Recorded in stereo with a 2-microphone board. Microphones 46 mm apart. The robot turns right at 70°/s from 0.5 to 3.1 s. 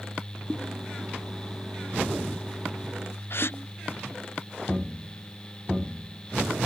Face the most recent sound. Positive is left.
turn(degrees=55)  # may be behind; listen again after turning